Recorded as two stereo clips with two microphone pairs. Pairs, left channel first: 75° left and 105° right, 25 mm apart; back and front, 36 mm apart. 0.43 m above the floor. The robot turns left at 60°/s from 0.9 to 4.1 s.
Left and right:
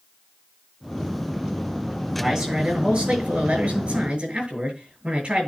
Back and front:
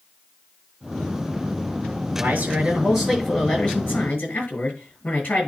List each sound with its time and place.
2.1 s a man speaking: 30° right, 6.5 m; by 5.5 s 145° right, 6.5 m